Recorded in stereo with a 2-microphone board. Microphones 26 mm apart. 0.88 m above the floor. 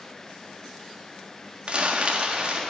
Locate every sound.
1.7 s crumpling: 50° right (ahead or behind), 1.5 m